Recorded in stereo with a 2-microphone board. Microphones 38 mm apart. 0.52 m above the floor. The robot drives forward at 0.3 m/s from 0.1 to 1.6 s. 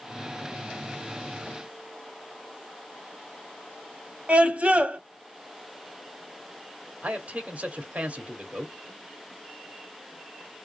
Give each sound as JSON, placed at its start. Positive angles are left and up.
{"t": 4.3, "sound": "a scream", "side_deg": -40, "distance_m": 1.5}
{"t": 7.0, "sound": "a man speaking", "side_deg": -45, "distance_m": 1.6}